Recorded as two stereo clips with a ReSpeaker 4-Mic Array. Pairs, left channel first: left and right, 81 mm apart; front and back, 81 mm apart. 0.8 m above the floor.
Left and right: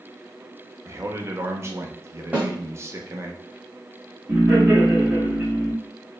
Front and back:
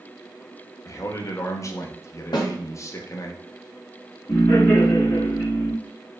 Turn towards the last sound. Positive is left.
turn(degrees=-25)